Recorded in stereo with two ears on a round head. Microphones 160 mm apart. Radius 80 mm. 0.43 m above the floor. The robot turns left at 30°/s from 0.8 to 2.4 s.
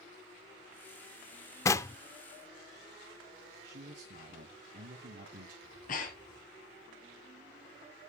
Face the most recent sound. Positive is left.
turn(degrees=50)  # may be behind; listen again after turning